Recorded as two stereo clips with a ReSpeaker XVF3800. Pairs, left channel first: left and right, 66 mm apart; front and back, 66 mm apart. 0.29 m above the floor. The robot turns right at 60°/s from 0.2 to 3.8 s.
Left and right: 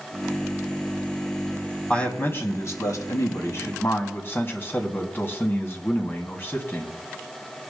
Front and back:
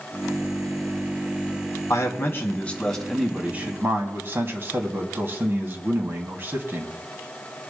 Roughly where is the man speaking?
Ahead.